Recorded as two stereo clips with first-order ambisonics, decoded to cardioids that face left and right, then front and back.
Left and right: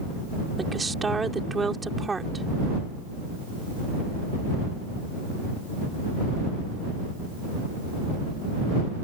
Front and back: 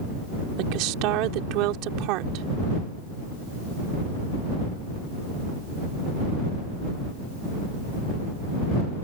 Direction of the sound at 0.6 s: 165° right.